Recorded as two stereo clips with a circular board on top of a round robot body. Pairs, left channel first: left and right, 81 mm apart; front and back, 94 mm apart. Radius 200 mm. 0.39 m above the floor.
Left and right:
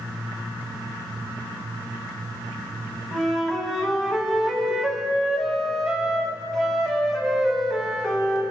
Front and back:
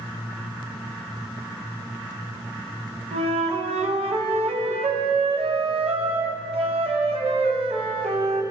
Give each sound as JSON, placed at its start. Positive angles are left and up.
{"t": 3.1, "sound": "a flute", "azimuth_deg": 180, "distance_m": 1.1}